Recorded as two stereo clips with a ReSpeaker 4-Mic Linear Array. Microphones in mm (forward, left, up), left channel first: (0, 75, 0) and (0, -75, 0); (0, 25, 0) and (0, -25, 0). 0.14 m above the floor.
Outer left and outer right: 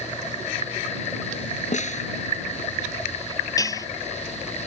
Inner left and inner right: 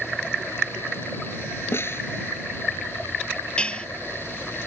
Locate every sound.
1.7 s a snare drum: 55° left (ahead or behind)
3.6 s dishes clattering: 25° left (ahead or behind)